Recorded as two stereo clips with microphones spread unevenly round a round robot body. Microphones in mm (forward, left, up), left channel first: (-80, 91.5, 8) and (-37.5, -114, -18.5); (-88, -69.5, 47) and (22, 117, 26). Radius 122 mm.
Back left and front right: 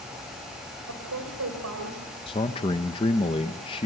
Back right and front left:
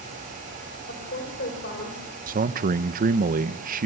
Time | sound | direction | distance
0.9 | a woman speaking | 75° right | 4 m
2.3 | a man speaking | 30° left | 0.8 m